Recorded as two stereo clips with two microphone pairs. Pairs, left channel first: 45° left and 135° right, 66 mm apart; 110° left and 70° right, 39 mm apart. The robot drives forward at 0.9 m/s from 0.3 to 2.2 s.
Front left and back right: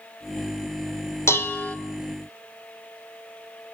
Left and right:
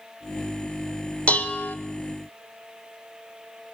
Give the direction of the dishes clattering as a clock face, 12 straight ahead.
10 o'clock.